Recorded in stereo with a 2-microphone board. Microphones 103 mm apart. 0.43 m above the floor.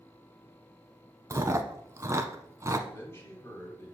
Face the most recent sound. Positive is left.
turn(degrees=25)  # may be behind; listen again after turning